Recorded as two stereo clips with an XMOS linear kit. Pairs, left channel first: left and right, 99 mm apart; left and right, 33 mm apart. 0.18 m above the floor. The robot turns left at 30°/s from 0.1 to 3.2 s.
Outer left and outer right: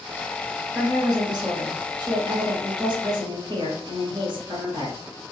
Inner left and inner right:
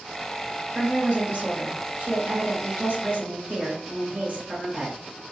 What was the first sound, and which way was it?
A woman speaking, 40° right.